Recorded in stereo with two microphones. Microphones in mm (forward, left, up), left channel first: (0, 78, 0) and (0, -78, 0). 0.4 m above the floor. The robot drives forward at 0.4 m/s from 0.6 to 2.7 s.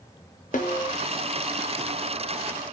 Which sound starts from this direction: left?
A snare drum, at 0.5 s.